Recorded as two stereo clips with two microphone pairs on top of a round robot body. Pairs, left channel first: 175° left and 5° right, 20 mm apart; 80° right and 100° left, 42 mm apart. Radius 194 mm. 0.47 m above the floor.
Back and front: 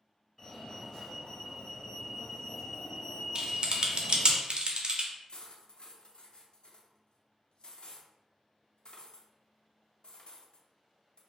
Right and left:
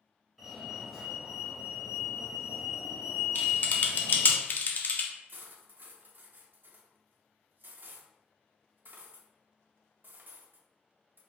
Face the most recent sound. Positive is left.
turn(degrees=135)